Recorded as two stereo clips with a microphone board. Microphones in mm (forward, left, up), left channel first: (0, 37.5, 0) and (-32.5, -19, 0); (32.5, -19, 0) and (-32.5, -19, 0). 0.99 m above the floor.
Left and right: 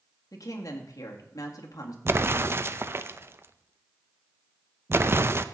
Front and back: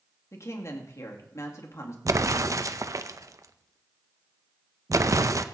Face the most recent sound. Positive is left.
turn(degrees=-165)